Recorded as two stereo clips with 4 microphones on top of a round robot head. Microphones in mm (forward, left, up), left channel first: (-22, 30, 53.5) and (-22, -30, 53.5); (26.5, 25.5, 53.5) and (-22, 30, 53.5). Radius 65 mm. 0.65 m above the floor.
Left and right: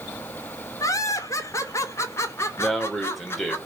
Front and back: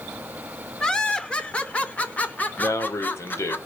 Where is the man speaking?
Straight ahead, 3 m.